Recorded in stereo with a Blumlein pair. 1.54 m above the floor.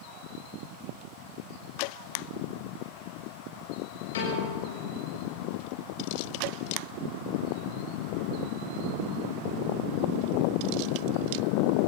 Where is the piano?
60° left, 7.5 m.